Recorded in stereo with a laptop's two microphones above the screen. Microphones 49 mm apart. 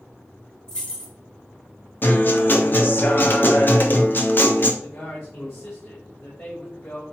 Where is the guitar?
40° left (ahead or behind), 1.2 m.